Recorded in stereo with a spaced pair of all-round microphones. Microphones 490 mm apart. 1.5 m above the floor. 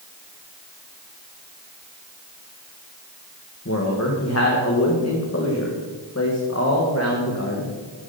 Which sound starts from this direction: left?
A man speaking, at 3.6 s.